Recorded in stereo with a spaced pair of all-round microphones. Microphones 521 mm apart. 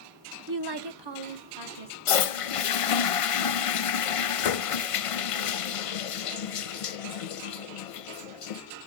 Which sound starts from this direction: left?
A toilet flushing, at 2.1 s.